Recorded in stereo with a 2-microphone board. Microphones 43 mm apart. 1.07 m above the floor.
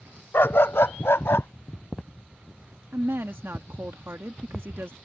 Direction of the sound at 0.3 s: 65° left (ahead or behind).